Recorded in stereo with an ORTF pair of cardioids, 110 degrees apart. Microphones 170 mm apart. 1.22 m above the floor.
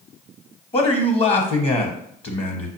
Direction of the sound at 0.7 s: 35° left.